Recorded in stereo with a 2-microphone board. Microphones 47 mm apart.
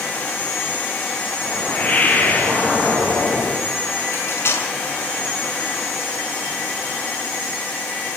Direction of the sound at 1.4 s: 35° left (ahead or behind).